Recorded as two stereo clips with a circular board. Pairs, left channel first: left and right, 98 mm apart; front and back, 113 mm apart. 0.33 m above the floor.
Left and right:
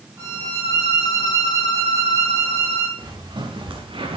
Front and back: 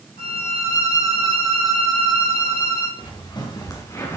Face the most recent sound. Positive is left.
turn(degrees=-65)